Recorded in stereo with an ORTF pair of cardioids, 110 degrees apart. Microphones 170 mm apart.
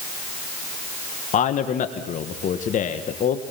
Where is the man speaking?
50° left, 1.5 m.